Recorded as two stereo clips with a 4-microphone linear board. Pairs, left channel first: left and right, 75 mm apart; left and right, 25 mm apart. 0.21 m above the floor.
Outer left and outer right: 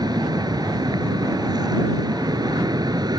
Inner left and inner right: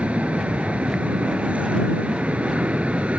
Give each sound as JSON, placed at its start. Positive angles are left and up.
{"t": 0.0, "sound": "an aircraft", "side_deg": -65}